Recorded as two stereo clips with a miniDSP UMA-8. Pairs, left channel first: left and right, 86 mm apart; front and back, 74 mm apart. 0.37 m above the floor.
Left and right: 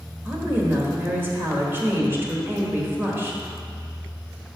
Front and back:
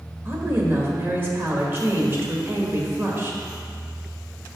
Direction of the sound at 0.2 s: 140° right.